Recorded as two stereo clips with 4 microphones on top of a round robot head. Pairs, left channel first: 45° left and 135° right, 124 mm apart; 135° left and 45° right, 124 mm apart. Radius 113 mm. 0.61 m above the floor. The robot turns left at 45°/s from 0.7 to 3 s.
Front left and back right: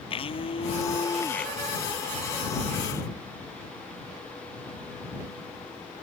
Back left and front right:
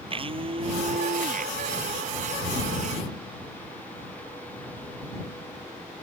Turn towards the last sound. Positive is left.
turn(degrees=-105)